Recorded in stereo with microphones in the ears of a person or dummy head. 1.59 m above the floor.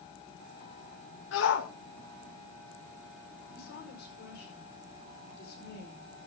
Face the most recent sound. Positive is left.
turn(degrees=70)  # may be behind; listen again after turning